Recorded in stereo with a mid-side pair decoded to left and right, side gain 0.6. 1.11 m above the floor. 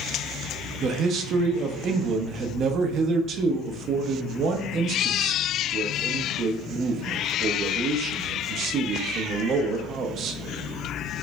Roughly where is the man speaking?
Ahead right.